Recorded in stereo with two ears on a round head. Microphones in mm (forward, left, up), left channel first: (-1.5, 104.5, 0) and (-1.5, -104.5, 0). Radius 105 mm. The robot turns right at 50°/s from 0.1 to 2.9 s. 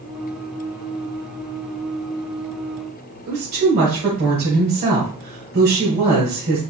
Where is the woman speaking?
40° right (ahead or behind), 2 m.